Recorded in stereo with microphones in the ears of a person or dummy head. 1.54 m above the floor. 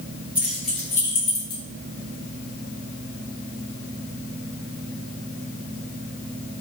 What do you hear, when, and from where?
0.3 s keys jangling: 5° right (ahead or behind), 1.0 m; by 1.6 s 45° left (ahead or behind), 0.8 m